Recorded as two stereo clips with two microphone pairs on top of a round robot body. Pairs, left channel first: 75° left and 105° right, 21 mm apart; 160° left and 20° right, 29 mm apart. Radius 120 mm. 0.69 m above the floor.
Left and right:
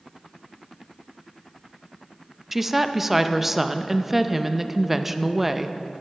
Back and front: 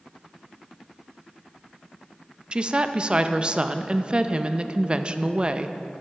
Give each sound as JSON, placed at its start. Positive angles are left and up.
{"t": 2.5, "sound": "a woman speaking", "azimuth_deg": -20, "distance_m": 0.6}